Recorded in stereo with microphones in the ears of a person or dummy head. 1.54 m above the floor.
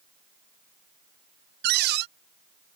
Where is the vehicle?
I don't hear a vehicle.